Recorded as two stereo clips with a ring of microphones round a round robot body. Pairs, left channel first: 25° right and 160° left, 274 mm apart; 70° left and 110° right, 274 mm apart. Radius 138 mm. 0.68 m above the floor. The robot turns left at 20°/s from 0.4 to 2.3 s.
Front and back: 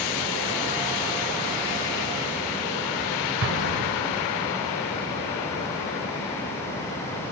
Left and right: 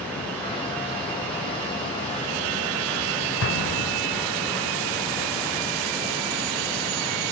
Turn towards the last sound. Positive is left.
turn(degrees=110)